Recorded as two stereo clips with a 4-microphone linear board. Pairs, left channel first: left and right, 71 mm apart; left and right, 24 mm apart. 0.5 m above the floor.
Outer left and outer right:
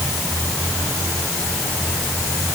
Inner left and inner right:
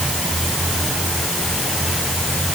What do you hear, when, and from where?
Only background noise.